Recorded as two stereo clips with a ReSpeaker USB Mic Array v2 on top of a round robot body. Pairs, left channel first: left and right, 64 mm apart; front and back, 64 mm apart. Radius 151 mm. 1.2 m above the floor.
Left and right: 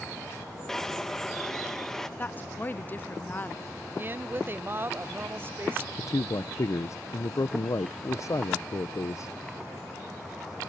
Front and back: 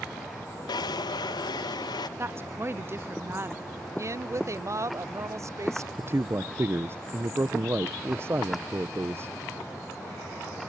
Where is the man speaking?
130° left.